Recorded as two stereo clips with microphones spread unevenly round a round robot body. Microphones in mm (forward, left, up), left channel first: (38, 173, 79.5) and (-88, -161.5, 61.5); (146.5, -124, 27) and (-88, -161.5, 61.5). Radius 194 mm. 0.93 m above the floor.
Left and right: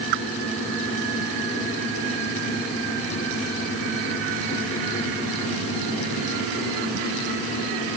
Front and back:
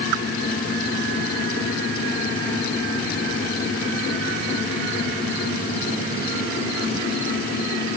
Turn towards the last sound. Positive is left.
No sound to turn to.